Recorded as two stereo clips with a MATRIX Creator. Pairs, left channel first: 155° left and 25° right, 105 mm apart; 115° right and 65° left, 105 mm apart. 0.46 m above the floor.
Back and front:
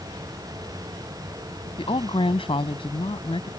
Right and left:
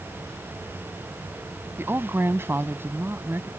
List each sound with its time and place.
1.8 s a woman speaking: 135° left